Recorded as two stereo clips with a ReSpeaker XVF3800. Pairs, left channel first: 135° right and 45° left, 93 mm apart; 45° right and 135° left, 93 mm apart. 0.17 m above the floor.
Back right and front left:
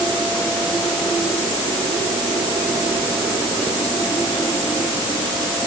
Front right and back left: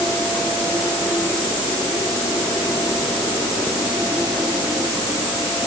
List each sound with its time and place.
Only background noise.